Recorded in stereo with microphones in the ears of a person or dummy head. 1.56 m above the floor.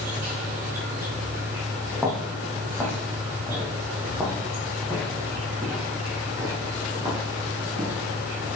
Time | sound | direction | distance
0.0 | an insect | 10° right (ahead or behind) | 5 m
1.9 | footsteps | 10° left (ahead or behind) | 4 m